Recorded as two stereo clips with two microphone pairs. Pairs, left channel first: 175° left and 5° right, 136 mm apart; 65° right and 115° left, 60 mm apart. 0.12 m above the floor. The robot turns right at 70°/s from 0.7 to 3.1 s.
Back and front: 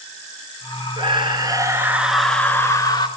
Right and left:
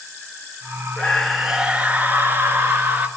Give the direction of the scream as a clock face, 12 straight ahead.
12 o'clock.